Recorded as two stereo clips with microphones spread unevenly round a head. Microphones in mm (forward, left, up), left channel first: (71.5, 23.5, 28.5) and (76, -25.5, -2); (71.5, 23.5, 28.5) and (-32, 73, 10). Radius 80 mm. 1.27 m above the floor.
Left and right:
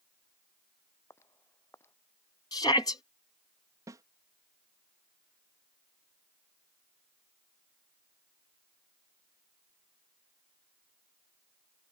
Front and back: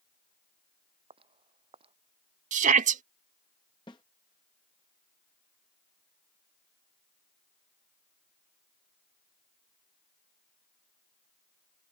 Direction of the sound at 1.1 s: 115° left.